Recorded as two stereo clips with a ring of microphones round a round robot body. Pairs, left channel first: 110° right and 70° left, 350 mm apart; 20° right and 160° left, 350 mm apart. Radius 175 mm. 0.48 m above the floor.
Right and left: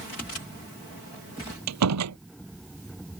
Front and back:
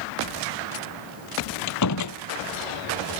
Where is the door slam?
20° left.